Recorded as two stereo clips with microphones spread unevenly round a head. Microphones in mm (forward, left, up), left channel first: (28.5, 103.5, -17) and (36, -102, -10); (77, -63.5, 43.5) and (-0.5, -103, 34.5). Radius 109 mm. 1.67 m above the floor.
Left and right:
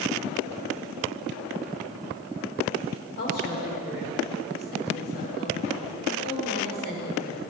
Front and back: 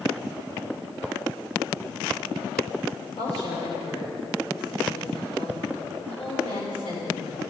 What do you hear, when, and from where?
3.2 s a woman speaking: 50° left, 6.5 m